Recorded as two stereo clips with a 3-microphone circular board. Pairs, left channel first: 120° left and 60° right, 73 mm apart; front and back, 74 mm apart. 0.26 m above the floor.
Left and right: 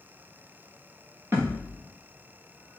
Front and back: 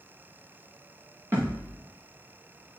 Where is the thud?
120° right, 5.5 m.